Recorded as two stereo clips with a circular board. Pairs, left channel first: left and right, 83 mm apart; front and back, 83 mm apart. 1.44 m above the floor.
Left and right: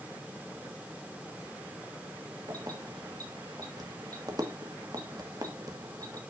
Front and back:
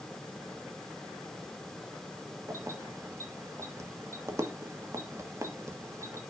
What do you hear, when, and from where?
2.5 s keys jangling: 130° right, 1.3 m